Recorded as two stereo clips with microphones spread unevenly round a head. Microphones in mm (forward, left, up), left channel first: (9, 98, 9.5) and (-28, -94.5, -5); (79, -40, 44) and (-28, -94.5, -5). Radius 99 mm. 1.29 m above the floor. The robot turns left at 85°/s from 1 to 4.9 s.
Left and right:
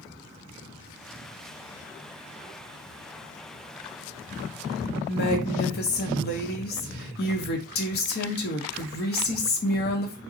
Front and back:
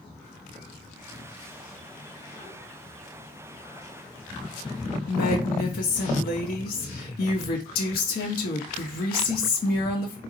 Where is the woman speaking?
40° left, 0.9 m.